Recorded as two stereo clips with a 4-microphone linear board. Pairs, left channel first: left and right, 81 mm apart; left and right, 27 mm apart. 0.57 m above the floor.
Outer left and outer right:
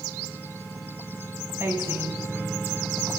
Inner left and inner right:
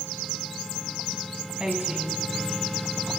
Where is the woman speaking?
30° right (ahead or behind), 3.5 m.